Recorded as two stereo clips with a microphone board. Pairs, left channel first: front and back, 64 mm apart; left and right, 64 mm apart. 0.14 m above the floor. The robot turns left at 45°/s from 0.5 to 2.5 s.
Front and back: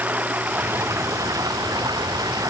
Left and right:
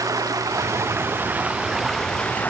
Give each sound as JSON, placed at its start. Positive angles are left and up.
{"t": 0.0, "sound": "running water", "azimuth_deg": -115}